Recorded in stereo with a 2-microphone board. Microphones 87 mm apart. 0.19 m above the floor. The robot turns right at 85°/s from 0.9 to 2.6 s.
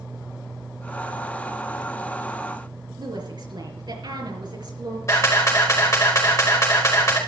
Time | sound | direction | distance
3.0 | a woman speaking | 55° right (ahead or behind) | 4 m
5.1 | a camera shutter | 35° left (ahead or behind) | 5 m